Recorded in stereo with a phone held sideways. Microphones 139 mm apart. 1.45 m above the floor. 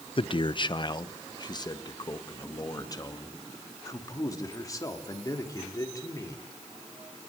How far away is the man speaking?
About 0.7 m.